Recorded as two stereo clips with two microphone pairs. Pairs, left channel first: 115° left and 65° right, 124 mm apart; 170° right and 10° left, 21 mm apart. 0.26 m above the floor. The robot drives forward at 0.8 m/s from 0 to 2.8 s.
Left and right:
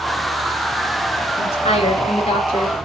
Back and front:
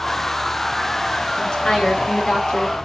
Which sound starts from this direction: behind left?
A woman speaking, at 1.4 s.